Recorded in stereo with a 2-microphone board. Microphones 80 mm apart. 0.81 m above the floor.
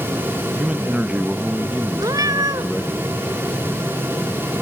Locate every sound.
0.6 s a man speaking: 15° right (ahead or behind), 0.8 m
2.0 s a cat meowing: 50° right (ahead or behind), 1.3 m